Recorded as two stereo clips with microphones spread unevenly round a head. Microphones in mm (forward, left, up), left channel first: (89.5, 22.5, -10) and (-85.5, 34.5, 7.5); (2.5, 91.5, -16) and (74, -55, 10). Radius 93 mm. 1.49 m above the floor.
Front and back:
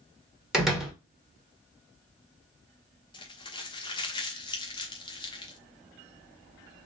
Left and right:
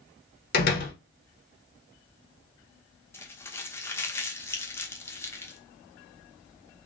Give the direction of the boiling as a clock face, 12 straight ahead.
I don't hear boiling.